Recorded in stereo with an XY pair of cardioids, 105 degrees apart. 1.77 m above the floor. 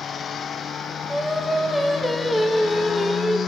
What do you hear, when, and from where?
1.1 s singing: straight ahead, 2 m